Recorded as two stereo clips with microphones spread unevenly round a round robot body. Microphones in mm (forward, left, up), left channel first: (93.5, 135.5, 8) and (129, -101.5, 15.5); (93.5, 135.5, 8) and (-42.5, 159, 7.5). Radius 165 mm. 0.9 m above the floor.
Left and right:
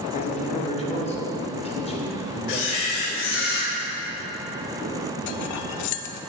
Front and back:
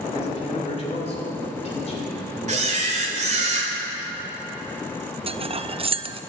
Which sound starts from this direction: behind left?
A camera shutter, at 2.5 s.